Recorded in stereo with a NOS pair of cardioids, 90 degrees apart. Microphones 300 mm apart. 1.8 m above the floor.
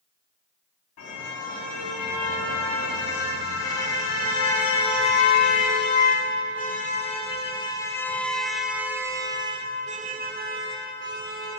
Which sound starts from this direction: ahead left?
A car horn, at 1.0 s.